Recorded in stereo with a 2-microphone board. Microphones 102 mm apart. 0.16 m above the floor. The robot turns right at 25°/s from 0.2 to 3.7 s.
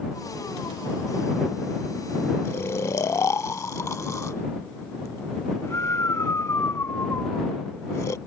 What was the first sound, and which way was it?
Snoring, 25° left (ahead or behind).